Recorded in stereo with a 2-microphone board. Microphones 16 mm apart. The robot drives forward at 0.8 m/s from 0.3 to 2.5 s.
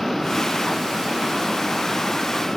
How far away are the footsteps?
I don't hear footsteps.